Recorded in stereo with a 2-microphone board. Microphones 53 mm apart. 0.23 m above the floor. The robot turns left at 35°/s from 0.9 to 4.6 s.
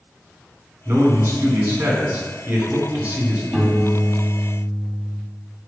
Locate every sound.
0.8 s a man speaking: 65° right, 2.5 m; by 3.4 s 155° right, 2.5 m
3.5 s a piano: 10° left, 1.9 m; by 5.2 s 25° right, 1.9 m